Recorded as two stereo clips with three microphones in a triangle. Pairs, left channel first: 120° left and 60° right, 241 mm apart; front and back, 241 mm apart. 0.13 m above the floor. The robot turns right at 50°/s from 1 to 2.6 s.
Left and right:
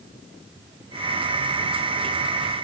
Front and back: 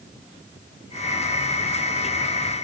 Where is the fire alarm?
I don't hear a fire alarm.